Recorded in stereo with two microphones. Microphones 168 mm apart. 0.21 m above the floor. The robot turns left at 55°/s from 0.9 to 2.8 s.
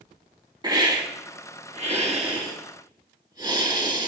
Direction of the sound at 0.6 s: 45° right.